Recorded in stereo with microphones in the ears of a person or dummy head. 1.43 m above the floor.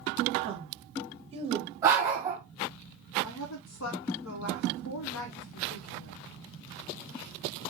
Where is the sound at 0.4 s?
30° right (ahead or behind), 0.7 m.